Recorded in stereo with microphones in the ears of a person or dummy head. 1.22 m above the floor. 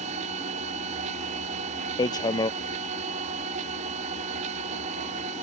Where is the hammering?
20° left (ahead or behind).